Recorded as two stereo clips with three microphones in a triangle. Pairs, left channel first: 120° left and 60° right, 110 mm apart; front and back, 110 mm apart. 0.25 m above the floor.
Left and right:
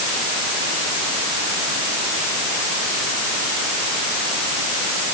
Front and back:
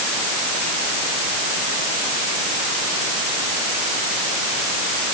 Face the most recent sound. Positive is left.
No sound to turn to.